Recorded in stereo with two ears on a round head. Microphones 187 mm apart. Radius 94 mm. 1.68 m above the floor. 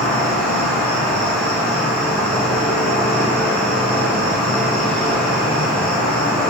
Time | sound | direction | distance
0.0 | an insect | 25° left (ahead or behind) | 1.1 m